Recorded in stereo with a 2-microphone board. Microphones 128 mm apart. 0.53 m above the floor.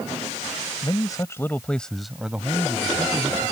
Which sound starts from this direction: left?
A man speaking, at 0.8 s.